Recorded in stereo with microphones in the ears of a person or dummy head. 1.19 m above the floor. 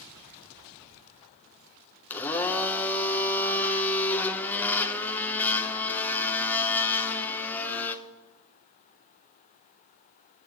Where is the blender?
10° left (ahead or behind), 0.8 m.